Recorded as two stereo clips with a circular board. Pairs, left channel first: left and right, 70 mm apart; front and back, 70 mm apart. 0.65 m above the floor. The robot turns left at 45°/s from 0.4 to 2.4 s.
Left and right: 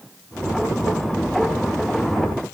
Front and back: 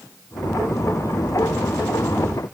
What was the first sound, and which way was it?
Only background noise.